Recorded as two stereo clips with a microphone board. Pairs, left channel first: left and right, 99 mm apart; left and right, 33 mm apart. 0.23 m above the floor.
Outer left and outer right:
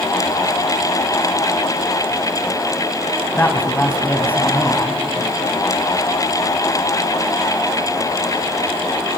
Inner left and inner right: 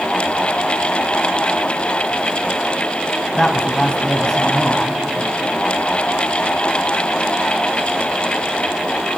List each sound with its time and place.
3.4 s a woman speaking: 20° left (ahead or behind), 1.6 m